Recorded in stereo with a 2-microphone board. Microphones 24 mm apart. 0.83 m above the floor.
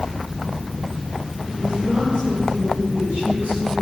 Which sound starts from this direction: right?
A woman speaking, at 1.5 s.